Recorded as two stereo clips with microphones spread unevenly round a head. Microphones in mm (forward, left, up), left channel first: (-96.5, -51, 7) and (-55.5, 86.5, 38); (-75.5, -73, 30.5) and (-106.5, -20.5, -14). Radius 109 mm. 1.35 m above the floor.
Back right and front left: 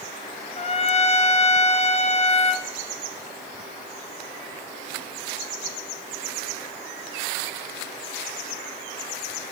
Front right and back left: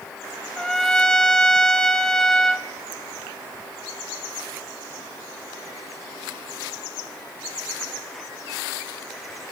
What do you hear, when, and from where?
0.6 s a trumpet: 150° right, 0.6 m